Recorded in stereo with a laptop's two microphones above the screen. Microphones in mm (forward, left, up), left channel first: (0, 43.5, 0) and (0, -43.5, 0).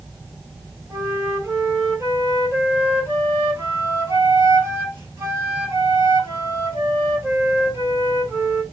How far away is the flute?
About 2.5 m.